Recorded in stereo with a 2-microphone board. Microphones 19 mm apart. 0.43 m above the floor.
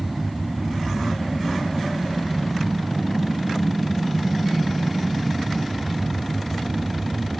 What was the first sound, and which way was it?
An aircraft, 10° right (ahead or behind).